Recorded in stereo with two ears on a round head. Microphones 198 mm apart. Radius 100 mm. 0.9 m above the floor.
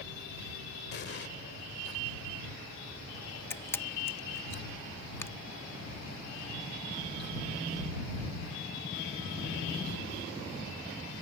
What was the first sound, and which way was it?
An explosion, 50° left (ahead or behind).